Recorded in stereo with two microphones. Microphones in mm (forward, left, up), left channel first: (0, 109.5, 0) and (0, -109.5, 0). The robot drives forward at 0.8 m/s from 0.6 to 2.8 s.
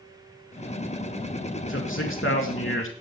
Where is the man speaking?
65° left (ahead or behind), 3 m.